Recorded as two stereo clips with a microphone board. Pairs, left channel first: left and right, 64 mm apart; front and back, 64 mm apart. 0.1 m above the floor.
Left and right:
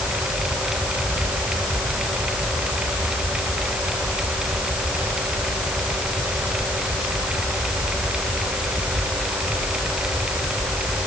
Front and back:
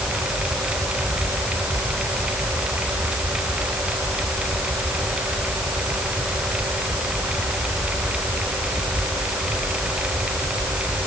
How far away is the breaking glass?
No breaking glass in this recording.